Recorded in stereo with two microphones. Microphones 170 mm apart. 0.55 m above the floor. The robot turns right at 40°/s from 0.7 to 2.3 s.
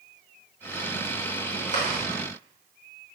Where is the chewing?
50° left (ahead or behind), 3.5 m; by 2.0 s 35° left (ahead or behind), 3.5 m.